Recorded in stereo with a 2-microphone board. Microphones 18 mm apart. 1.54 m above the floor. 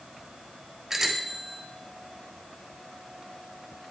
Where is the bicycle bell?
20° right (ahead or behind), 4 m.